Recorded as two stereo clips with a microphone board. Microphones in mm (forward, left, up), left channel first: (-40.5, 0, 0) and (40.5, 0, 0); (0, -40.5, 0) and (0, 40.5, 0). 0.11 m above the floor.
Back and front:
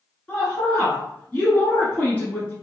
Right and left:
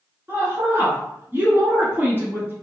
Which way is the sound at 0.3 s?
125° left.